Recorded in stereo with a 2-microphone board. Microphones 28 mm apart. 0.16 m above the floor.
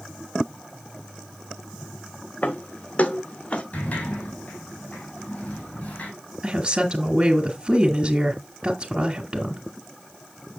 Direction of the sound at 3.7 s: 60° left (ahead or behind).